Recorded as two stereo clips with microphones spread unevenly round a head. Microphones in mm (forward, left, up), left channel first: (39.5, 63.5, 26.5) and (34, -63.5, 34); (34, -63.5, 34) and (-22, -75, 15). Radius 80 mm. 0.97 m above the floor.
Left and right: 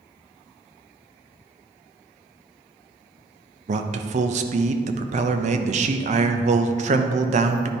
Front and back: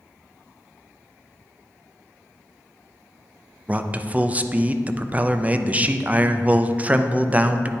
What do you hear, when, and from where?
3.7 s a man speaking: 120° right, 0.5 m